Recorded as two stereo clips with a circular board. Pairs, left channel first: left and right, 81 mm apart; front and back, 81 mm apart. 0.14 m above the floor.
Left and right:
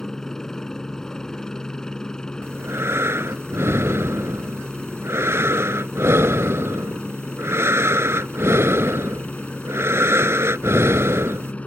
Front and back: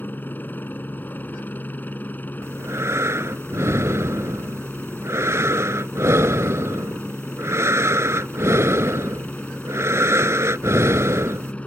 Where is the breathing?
135° right.